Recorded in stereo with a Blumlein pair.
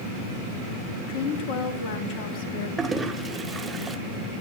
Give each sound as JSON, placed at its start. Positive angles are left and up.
{"t": 1.1, "sound": "a woman speaking", "azimuth_deg": 45, "distance_m": 3.5}
{"t": 2.8, "sound": "a toilet flushing", "azimuth_deg": -15, "distance_m": 1.6}